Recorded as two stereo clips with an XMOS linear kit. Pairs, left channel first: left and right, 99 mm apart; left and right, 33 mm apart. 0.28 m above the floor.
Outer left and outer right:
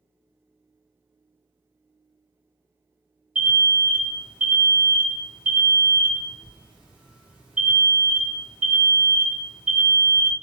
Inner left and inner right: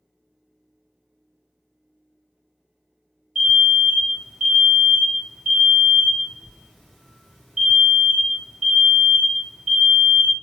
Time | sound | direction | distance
3.4 | an alarm | 10° right (ahead or behind) | 1.6 m